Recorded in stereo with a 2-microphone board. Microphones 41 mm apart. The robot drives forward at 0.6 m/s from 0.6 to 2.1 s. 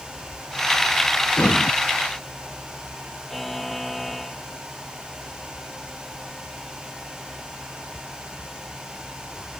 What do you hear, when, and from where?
1.4 s breathing: 50° left (ahead or behind)
3.3 s a buzzer: 5° left (ahead or behind)